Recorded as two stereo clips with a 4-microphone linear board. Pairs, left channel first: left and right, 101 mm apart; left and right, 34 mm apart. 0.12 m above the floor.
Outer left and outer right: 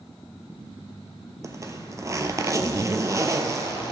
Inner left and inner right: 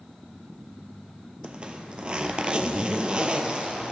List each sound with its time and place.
1.4 s a zipper: 35° right (ahead or behind), 0.7 m